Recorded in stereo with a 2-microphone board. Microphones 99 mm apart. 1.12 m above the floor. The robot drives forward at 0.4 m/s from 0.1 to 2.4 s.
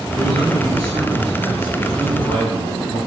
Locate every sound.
0.1 s a man speaking: 65° right (ahead or behind), 7.5 m; by 3.0 s 55° right (ahead or behind), 8 m